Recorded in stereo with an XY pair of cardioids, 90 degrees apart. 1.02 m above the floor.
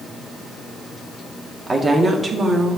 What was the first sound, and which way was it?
A woman speaking, 30° right.